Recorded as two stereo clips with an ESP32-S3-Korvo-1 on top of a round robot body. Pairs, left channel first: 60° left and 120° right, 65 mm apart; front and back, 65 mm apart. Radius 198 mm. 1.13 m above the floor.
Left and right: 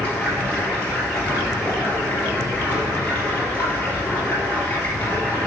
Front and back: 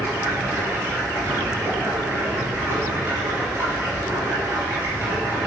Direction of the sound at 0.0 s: 130° left.